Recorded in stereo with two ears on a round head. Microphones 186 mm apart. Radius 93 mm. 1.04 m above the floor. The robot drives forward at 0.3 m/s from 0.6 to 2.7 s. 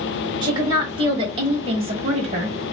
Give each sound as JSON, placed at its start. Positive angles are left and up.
{"t": 0.4, "sound": "a woman speaking", "side_deg": -20, "distance_m": 1.4}